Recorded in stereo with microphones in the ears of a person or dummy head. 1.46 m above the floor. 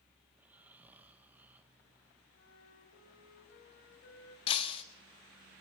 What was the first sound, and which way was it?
Snoring, 10° right (ahead or behind).